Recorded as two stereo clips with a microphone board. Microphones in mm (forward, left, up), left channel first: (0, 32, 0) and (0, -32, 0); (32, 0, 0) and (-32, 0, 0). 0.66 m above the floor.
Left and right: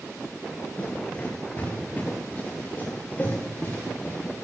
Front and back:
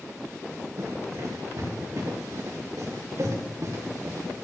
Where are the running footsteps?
150° left, 4 m; by 4.2 s 145° left, 6 m.